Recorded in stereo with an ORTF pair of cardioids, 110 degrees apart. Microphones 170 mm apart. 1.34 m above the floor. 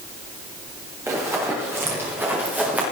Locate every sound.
1.1 s running footsteps: 15° right, 5.5 m; by 2.8 s 10° right, 5 m